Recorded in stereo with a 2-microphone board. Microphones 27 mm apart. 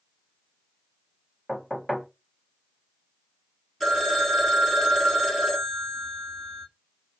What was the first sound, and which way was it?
Knocking, 10° left (ahead or behind).